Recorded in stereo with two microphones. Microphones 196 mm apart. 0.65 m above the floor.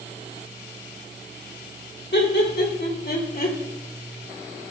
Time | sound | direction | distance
2.1 | laughter | 60° left (ahead or behind) | 2.5 m